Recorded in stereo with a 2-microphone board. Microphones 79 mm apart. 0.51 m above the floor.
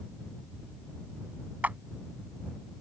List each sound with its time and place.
1.6 s a clap: 20° right (ahead or behind)